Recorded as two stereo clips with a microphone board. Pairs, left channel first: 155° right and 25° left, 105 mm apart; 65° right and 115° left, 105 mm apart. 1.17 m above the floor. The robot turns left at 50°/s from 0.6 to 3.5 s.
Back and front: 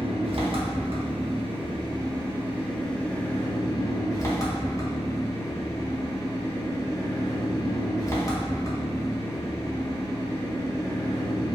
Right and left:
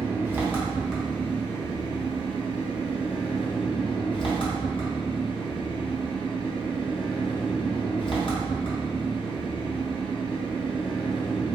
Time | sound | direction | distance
0.0 | an engine running | 40° left | 0.8 m